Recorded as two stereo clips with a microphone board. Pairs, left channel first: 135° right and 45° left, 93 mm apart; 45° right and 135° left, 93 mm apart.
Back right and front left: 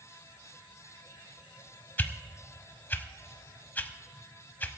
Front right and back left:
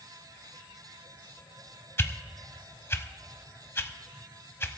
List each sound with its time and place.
2.0 s a whoosh: 85° right, 0.7 m